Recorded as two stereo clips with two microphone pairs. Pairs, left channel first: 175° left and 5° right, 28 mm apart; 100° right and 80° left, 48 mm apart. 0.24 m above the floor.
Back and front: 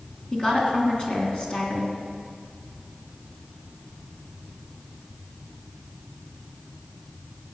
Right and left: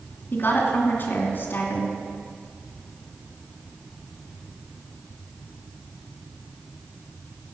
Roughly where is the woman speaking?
Behind right.